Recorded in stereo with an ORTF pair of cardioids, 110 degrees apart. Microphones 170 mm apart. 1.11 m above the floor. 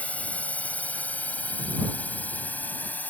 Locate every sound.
0.0 s a drone: 10° left